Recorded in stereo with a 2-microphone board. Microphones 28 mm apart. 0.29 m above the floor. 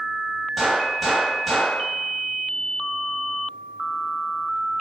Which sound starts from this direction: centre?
A gunshot, at 0.6 s.